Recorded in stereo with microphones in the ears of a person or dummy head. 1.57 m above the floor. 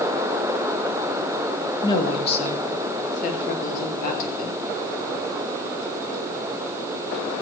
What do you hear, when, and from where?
1.8 s a woman speaking: 20° left (ahead or behind), 2 m; by 4.6 s 45° left (ahead or behind), 5 m